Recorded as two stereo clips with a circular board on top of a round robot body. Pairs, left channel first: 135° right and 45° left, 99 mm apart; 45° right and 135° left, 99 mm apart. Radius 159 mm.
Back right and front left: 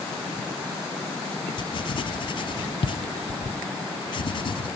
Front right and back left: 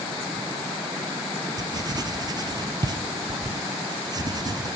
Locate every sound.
1.6 s writing: 175° right, 0.9 m